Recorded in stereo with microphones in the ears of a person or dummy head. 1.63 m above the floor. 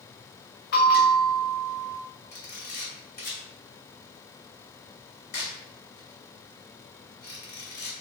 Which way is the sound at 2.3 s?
50° left (ahead or behind).